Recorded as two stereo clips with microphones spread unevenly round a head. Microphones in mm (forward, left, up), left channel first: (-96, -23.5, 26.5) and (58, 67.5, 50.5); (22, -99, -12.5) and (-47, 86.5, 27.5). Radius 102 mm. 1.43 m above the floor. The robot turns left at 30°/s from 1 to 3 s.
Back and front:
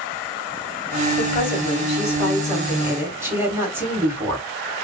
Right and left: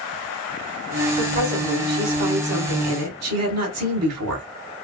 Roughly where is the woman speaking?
Behind.